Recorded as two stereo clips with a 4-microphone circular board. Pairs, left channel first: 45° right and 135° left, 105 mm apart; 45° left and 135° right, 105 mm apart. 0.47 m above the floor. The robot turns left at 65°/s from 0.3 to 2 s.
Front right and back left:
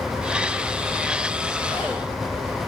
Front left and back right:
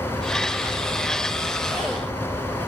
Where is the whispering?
140° right, 1.1 m; by 2.0 s 160° right, 1.1 m.